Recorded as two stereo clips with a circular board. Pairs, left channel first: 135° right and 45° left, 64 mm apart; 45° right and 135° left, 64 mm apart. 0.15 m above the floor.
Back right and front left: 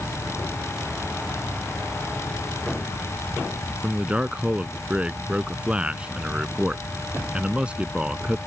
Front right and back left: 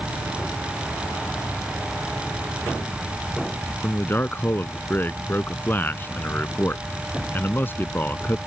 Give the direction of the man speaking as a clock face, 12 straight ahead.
1 o'clock.